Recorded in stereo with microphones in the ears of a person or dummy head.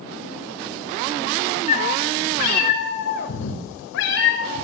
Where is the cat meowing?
45° left (ahead or behind), 3.5 m; by 4.6 s 80° left, 3.5 m.